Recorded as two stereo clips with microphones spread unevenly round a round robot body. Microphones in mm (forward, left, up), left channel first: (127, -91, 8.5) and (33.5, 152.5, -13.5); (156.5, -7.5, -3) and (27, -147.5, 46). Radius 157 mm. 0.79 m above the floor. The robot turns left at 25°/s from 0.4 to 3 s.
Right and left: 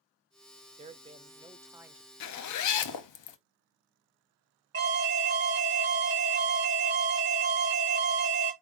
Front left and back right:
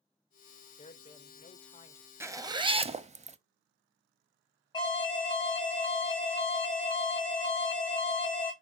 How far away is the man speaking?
About 0.6 m.